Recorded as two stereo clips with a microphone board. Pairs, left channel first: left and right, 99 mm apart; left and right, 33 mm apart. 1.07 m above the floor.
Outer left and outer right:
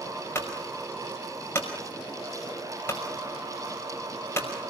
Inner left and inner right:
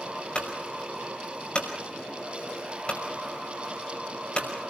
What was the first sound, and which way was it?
A clunk, 25° left (ahead or behind).